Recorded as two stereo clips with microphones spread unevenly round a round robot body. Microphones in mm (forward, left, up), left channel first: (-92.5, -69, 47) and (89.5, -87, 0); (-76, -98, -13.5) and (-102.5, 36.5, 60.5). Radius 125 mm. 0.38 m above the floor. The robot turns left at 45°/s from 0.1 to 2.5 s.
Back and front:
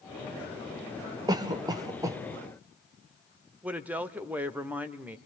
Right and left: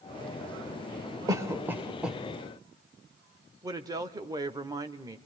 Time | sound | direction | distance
1.3 | a cough | 5° left | 0.9 m
3.6 | a woman speaking | 5° right | 0.8 m